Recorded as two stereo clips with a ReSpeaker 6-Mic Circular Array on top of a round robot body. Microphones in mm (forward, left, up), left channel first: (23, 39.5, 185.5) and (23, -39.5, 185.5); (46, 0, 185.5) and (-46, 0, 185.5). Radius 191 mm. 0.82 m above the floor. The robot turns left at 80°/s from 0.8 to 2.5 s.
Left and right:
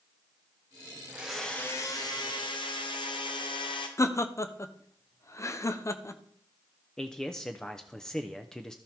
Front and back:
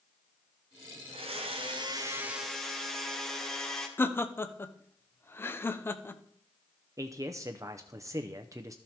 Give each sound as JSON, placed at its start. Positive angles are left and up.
{"t": 1.1, "sound": "a blender", "azimuth_deg": -160, "distance_m": 1.2}
{"t": 4.0, "sound": "laughter", "azimuth_deg": 55, "distance_m": 1.0}
{"t": 7.0, "sound": "a man speaking", "azimuth_deg": 165, "distance_m": 0.8}